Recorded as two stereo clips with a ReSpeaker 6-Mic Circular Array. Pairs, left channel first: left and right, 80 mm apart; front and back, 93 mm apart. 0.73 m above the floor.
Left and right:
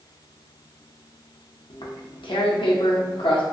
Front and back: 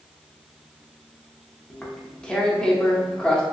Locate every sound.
1.7 s tearing paper: 80° left, 0.5 m